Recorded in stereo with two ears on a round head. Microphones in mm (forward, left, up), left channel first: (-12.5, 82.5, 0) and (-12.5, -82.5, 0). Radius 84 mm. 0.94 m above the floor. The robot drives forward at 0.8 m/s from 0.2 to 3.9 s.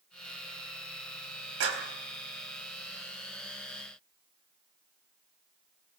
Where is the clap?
90° right, 4 m.